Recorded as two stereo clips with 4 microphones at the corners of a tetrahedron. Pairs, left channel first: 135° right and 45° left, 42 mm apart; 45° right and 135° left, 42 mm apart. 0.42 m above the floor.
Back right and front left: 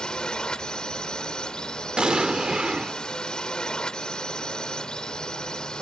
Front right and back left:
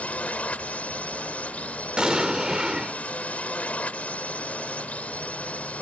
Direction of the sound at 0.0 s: 80° right.